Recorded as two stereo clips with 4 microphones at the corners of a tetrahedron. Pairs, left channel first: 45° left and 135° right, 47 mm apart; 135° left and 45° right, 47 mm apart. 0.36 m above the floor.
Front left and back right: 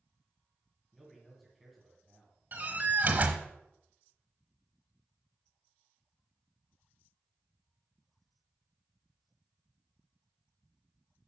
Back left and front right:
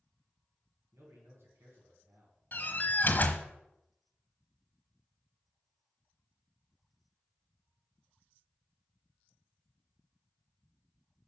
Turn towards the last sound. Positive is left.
turn(degrees=180)